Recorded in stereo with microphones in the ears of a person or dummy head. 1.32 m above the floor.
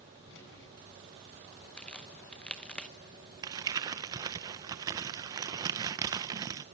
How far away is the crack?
About 0.9 m.